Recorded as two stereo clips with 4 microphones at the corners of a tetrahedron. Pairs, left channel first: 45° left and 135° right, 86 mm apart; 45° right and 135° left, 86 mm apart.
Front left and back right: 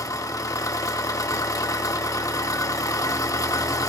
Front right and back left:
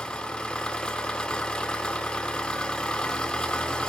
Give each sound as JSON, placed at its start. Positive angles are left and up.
{"t": 0.0, "sound": "an engine running", "azimuth_deg": 25, "distance_m": 0.7}